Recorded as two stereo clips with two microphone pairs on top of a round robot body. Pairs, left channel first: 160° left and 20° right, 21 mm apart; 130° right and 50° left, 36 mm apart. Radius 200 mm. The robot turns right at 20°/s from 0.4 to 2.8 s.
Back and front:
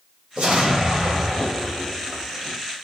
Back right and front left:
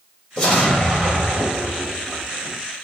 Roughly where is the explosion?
Right.